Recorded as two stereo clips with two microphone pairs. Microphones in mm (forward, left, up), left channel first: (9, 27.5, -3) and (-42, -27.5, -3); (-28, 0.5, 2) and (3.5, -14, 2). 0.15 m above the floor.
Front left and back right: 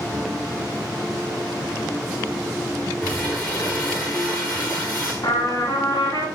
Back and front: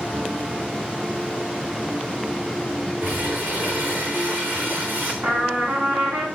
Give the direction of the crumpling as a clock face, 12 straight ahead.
1 o'clock.